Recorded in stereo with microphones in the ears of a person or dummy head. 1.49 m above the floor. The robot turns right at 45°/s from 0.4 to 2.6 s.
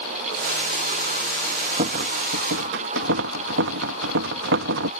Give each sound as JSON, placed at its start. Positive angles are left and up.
{"t": 1.8, "sound": "a rattle", "azimuth_deg": -140}